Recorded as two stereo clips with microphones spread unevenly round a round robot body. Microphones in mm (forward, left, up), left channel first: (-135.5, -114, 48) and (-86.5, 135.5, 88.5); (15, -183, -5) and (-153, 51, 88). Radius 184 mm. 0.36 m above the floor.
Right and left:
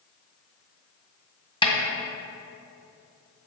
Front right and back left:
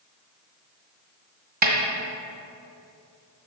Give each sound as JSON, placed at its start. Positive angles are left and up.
{"t": 1.6, "sound": "a snare drum", "azimuth_deg": -170, "distance_m": 1.8}